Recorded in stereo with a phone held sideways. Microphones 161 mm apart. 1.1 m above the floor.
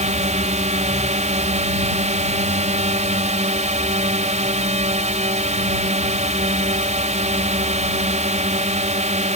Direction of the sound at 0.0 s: 45° right (ahead or behind).